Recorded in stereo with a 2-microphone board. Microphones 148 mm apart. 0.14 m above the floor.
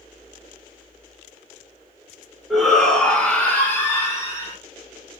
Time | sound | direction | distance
2.5 | a shout | centre (ahead or behind) | 1.3 m